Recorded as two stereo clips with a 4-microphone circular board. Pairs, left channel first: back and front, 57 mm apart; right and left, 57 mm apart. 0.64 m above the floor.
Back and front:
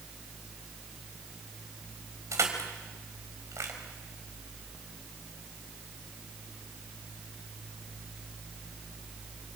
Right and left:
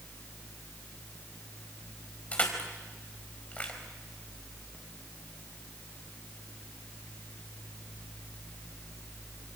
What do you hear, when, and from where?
2.3 s crushing: 25° right, 4.5 m